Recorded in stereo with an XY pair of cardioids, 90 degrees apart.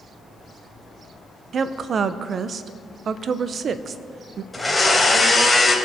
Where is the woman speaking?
55° right, 0.8 m.